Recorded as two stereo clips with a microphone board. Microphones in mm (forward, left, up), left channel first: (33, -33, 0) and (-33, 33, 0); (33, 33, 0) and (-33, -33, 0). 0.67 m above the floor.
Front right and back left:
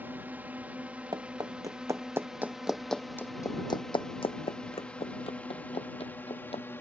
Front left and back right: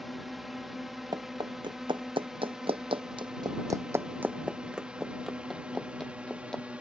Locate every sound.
0.0 s a drone: 140° left; by 6.8 s 75° right
1.1 s running footsteps: straight behind; by 6.6 s 40° right